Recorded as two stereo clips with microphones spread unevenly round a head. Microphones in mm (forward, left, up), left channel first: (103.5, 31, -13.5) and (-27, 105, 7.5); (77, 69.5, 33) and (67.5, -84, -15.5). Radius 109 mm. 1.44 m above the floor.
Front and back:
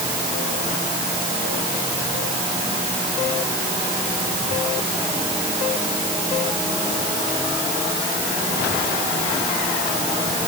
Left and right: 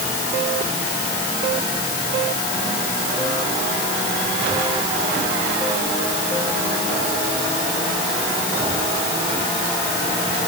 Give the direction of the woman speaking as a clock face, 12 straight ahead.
No woman speaking in this recording.